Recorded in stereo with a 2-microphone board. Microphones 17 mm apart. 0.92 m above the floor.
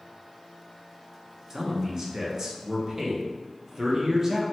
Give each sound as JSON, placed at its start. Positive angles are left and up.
{"t": 1.5, "sound": "a man speaking", "side_deg": -30, "distance_m": 0.6}